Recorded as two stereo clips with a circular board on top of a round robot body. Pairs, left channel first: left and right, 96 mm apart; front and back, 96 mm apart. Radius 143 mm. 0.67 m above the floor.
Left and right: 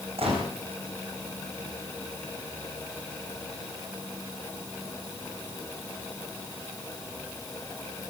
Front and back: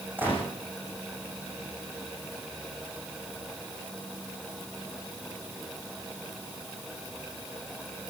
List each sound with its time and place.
0.2 s a gunshot: 110° right, 9.5 m